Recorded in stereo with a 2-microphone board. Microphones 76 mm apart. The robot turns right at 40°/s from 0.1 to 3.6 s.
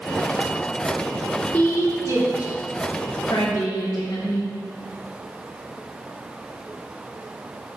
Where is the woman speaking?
20° left (ahead or behind), 3.5 m; by 4.5 s 70° left (ahead or behind), 3.5 m.